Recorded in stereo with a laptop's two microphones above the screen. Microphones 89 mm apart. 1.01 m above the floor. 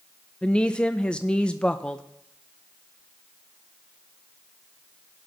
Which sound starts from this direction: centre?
A woman speaking, at 0.4 s.